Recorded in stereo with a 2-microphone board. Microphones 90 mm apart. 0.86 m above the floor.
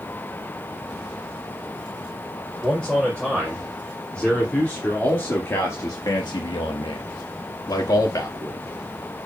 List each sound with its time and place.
2.6 s a man speaking: 5° left (ahead or behind), 4.5 m; by 8.6 s 35° left (ahead or behind), 2.5 m